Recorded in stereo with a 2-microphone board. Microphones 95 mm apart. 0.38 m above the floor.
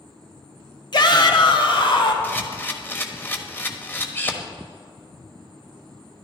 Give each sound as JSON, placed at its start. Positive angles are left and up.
{"t": 0.9, "sound": "a shout", "side_deg": 50, "distance_m": 1.4}
{"t": 2.2, "sound": "a camera shutter", "side_deg": 20, "distance_m": 1.1}